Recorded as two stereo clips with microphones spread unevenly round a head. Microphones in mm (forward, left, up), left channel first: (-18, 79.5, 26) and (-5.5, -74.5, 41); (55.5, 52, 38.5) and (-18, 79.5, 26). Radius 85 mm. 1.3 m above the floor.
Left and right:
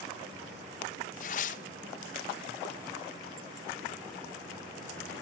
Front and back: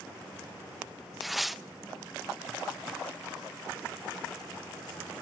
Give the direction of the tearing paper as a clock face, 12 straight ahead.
10 o'clock.